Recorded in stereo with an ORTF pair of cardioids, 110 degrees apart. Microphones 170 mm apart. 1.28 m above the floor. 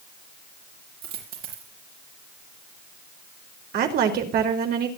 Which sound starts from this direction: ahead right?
A woman speaking, at 3.7 s.